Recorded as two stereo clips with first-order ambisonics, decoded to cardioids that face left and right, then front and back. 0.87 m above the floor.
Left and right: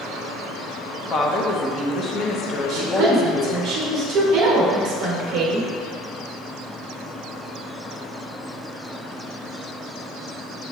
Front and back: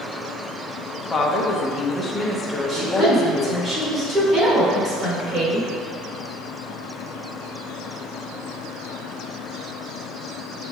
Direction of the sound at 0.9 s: 60° left.